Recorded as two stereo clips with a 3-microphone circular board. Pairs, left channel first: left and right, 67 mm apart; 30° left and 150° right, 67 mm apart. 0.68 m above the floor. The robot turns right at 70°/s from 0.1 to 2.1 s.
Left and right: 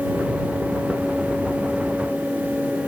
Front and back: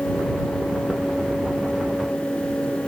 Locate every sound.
Only background noise.